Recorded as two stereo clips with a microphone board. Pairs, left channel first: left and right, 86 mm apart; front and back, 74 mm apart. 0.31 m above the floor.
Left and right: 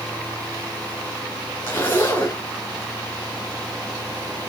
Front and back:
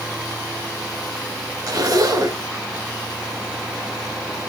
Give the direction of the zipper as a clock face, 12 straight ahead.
7 o'clock.